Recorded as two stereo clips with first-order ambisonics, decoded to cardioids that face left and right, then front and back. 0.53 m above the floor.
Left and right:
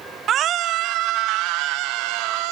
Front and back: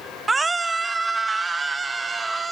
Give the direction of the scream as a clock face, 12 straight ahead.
4 o'clock.